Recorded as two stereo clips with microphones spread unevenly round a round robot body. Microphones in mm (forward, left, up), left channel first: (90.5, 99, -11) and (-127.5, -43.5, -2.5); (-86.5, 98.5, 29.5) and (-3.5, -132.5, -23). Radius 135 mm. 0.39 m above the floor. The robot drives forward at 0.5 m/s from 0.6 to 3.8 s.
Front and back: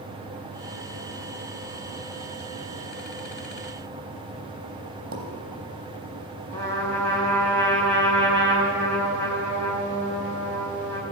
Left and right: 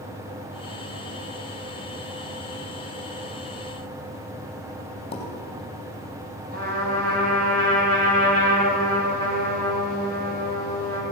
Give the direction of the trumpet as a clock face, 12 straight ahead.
4 o'clock.